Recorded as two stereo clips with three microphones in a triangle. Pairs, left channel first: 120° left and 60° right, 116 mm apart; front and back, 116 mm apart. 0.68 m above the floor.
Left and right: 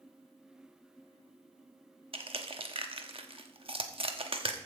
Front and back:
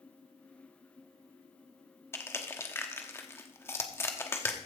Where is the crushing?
65° right, 1.0 m.